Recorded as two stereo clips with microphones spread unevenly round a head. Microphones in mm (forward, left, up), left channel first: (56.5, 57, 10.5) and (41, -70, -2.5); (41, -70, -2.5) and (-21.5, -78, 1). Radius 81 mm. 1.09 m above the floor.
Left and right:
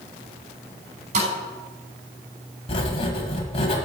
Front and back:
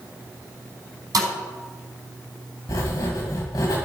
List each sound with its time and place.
1.1 s a thud: 150° right, 4.5 m
2.7 s writing: 50° left, 1.9 m